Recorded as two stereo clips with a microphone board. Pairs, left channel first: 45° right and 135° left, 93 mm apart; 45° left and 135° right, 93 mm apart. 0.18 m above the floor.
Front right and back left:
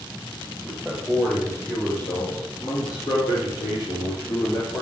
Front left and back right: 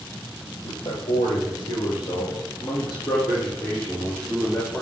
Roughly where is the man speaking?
Ahead left.